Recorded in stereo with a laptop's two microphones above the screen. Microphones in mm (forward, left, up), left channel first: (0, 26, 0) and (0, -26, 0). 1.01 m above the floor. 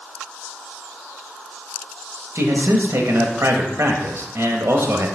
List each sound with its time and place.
2.4 s a man speaking: 60° right (ahead or behind), 1.0 m